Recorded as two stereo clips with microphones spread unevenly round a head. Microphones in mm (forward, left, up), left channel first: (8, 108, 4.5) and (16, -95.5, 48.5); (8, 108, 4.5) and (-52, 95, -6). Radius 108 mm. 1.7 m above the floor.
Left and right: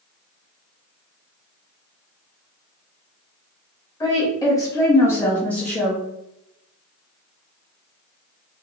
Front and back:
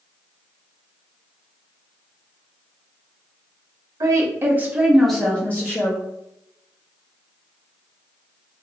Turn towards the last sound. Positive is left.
turn(degrees=-5)